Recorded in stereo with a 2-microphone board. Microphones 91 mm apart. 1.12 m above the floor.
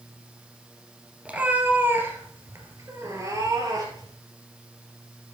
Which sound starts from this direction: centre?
A cat meowing, at 1.2 s.